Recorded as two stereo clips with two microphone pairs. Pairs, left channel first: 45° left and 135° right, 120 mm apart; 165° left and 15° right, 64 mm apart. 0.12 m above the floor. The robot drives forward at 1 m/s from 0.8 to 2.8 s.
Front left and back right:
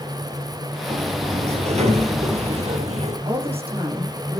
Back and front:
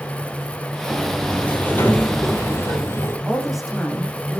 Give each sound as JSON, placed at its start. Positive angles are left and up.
{"t": 0.9, "sound": "a sliding door", "azimuth_deg": -120, "distance_m": 2.5}
{"t": 3.2, "sound": "a woman speaking", "azimuth_deg": -100, "distance_m": 7.0}